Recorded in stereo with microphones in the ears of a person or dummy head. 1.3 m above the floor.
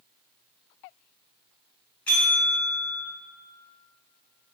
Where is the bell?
10° left (ahead or behind), 0.6 m.